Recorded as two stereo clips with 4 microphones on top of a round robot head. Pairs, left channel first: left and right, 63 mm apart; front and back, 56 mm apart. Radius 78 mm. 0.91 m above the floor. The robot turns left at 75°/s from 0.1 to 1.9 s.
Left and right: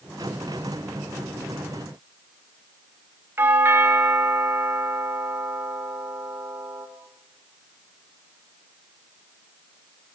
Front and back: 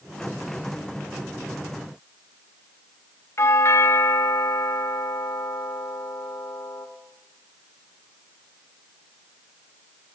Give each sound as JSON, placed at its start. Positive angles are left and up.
{"t": 3.4, "sound": "a doorbell", "azimuth_deg": -40, "distance_m": 2.5}